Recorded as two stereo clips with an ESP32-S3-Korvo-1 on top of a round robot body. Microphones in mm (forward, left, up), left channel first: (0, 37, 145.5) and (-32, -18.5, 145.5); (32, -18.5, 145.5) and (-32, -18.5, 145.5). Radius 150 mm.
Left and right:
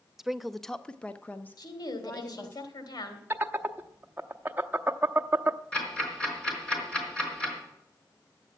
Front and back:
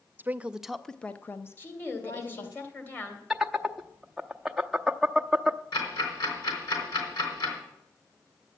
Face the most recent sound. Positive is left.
turn(degrees=-20)